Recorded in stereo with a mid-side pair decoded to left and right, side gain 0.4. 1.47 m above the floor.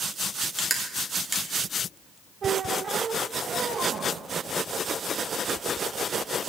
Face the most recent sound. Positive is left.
turn(degrees=-55)